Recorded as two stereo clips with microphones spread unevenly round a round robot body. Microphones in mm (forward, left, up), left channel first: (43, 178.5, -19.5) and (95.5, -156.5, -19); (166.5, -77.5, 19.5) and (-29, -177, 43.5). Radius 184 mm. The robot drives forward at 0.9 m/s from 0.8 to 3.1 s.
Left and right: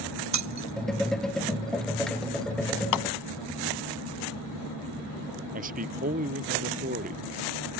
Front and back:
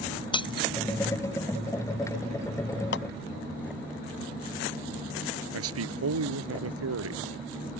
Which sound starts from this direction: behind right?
A man speaking, at 5.5 s.